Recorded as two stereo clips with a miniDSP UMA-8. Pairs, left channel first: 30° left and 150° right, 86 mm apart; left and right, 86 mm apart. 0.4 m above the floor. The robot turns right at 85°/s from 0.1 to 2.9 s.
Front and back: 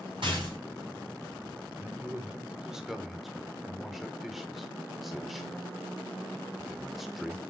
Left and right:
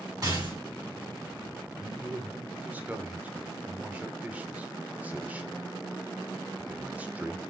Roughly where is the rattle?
Behind right.